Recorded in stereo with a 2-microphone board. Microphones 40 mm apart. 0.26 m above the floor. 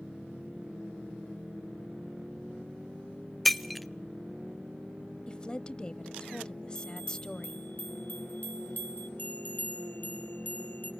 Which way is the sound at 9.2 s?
45° left (ahead or behind).